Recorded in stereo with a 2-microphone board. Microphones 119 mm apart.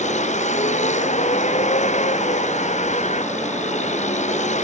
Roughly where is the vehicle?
Left.